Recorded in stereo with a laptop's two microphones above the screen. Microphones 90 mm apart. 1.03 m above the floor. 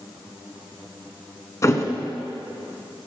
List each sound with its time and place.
1.6 s a thud: 35° left (ahead or behind), 1.3 m